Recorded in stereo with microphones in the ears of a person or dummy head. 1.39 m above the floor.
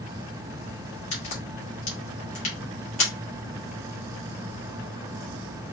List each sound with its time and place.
1.1 s a crack: 35° left (ahead or behind), 1.4 m